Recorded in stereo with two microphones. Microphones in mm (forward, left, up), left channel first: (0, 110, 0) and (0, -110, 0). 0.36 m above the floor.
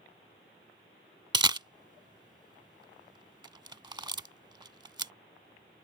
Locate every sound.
1.3 s a camera shutter: 20° right (ahead or behind)